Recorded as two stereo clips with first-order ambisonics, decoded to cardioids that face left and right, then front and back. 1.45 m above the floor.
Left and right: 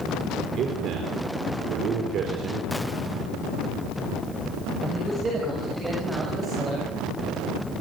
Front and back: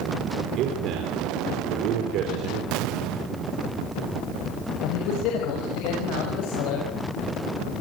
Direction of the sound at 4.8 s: 15° right.